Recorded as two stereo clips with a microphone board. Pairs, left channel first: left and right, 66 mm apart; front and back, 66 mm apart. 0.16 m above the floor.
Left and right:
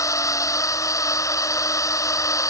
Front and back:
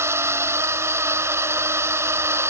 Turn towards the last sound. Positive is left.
turn(degrees=130)